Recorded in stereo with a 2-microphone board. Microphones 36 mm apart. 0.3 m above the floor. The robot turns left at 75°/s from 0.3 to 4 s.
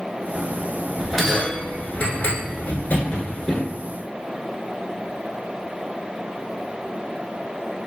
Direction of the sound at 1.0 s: 15° right (ahead or behind).